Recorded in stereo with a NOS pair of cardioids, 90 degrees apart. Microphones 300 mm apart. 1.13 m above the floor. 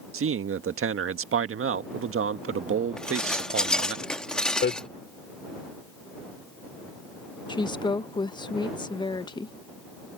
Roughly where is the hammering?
Ahead left.